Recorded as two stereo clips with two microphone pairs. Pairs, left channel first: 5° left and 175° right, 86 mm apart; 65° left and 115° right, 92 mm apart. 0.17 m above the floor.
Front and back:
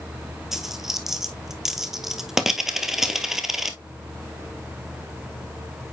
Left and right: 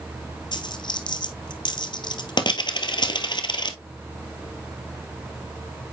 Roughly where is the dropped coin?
Left.